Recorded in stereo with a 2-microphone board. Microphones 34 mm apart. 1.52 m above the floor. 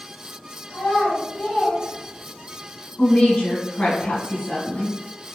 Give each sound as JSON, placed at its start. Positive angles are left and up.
{"t": 0.7, "sound": "a child speaking", "side_deg": 55, "distance_m": 1.6}
{"t": 3.0, "sound": "a woman speaking", "side_deg": 35, "distance_m": 1.3}